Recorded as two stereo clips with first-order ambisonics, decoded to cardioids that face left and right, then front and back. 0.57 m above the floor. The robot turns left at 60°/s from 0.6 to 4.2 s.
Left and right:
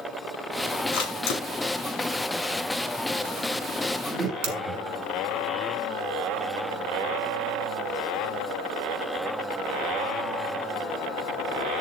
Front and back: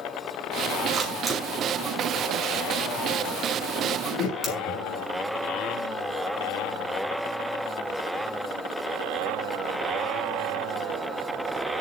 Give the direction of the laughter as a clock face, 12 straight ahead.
12 o'clock.